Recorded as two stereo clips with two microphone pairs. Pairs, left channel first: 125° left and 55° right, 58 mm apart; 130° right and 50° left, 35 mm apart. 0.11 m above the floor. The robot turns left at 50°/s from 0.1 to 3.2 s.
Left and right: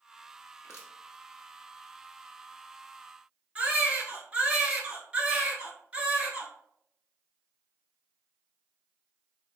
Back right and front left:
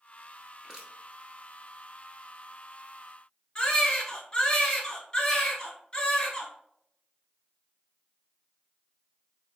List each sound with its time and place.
0.6 s crushing: 125° left, 1.2 m; by 0.9 s 110° left, 1.2 m
3.5 s a baby crying: 105° right, 1.0 m